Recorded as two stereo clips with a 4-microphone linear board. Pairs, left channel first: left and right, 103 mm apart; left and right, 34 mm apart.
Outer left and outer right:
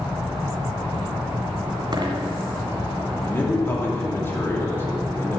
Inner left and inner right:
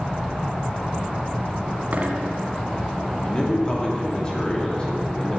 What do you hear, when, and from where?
1.9 s a dropped coin: 50° right (ahead or behind), 1.7 m
3.2 s a man speaking: 25° left (ahead or behind), 3 m